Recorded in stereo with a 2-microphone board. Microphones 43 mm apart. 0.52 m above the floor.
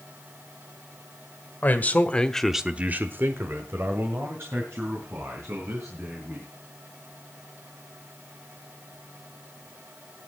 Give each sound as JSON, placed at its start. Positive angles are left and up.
{"t": 1.6, "sound": "a man speaking", "side_deg": 45, "distance_m": 1.7}